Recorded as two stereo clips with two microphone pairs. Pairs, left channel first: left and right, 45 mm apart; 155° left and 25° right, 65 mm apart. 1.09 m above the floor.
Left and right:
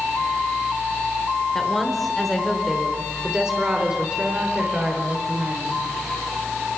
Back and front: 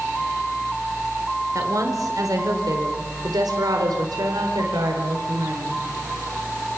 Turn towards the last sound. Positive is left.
turn(degrees=-35)